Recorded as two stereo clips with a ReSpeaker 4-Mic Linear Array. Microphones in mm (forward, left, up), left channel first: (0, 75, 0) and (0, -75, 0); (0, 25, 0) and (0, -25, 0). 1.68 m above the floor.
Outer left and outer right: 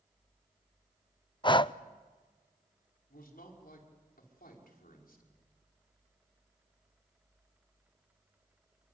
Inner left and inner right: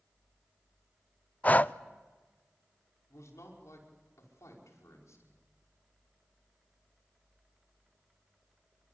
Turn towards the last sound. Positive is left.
turn(degrees=85)